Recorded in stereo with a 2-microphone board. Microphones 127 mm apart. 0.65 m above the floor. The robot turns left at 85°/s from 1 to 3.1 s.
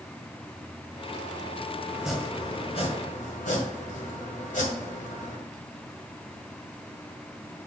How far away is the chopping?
About 1.9 m.